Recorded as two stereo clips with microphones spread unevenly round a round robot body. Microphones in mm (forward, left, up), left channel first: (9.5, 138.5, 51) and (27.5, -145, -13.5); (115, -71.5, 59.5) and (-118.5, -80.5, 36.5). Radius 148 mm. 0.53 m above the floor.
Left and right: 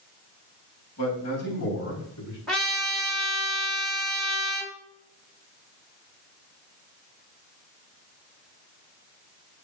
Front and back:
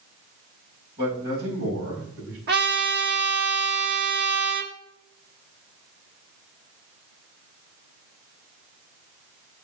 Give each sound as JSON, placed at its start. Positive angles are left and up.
{"t": 1.0, "sound": "a man speaking", "azimuth_deg": 135, "distance_m": 4.0}
{"t": 2.5, "sound": "a trumpet", "azimuth_deg": -165, "distance_m": 1.7}